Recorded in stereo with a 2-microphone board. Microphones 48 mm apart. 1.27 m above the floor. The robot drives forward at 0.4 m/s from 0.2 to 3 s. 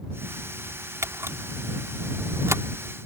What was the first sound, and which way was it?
A camera shutter, 85° right.